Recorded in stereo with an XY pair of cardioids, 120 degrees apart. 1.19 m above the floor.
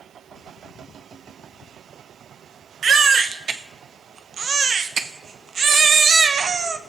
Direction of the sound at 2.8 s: 40° right.